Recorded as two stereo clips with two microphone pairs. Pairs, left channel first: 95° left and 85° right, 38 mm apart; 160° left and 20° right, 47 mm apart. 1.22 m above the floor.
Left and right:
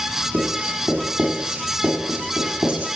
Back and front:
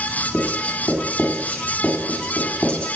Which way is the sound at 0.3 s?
130° right.